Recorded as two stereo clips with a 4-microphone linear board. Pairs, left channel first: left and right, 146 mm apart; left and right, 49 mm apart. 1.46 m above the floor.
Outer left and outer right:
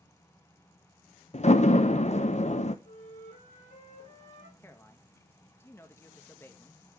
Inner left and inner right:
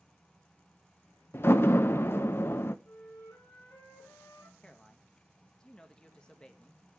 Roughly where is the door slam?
Left.